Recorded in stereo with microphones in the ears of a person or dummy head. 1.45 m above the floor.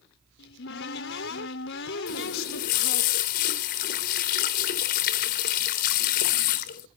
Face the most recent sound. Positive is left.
turn(degrees=50)  # may be behind; listen again after turning